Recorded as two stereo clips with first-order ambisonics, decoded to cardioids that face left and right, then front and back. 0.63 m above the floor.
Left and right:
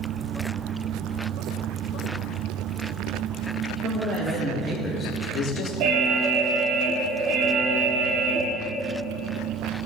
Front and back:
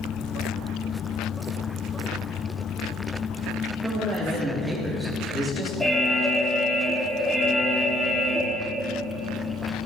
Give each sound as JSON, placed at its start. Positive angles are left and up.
{"t": 3.8, "sound": "a man speaking", "azimuth_deg": -100, "distance_m": 1.3}
{"t": 5.8, "sound": "an alarm", "azimuth_deg": -90, "distance_m": 0.8}